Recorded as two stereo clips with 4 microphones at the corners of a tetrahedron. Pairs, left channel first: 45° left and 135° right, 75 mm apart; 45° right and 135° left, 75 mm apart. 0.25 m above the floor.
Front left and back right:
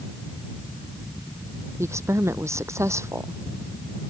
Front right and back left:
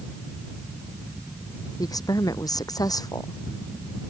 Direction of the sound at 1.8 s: 85° right.